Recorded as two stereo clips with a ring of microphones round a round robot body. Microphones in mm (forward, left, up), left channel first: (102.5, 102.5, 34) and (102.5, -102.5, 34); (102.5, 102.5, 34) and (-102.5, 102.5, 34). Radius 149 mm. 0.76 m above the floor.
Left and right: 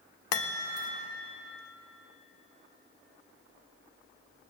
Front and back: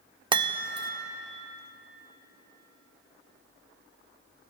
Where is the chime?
110° left, 1.0 m.